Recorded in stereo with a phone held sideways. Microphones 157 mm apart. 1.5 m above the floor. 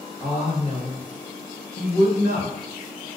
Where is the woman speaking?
20° left (ahead or behind), 0.8 m; by 2.7 s 85° left, 1.4 m.